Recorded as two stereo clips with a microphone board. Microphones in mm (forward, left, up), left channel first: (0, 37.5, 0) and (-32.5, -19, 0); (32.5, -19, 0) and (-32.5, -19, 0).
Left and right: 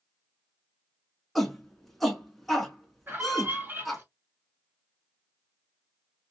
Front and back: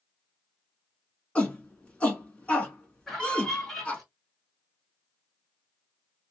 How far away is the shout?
About 1.1 m.